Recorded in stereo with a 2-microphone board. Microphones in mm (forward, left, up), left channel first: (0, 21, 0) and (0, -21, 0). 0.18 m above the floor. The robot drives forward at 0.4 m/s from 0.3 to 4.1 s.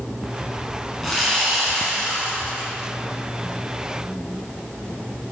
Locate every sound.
1.0 s sawing: 5° left (ahead or behind), 2 m